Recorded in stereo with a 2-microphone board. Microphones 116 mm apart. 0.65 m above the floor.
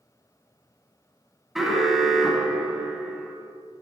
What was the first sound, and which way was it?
An alarm, 5° right (ahead or behind).